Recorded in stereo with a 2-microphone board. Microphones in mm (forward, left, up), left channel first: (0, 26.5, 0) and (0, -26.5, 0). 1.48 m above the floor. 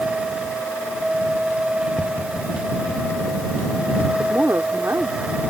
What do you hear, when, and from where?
2.0 s tapping: 35° left (ahead or behind)
4.2 s a woman speaking: 60° right (ahead or behind)